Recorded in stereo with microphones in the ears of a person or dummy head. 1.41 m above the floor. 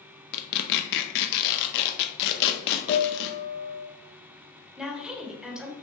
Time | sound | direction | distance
0.3 | tearing paper | 60° left (ahead or behind) | 0.6 m
2.9 | a piano | 75° left (ahead or behind) | 0.8 m
4.8 | a woman speaking | 5° right (ahead or behind) | 1.2 m